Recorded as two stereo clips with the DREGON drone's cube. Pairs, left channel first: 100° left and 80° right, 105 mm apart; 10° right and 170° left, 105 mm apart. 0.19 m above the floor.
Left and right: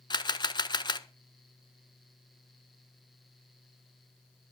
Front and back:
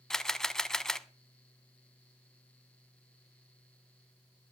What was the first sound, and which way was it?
A camera shutter, 75° left.